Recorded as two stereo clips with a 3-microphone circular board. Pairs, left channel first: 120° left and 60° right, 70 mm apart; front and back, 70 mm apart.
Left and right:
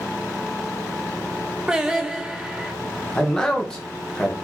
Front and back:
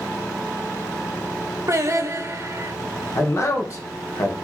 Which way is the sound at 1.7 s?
135° right.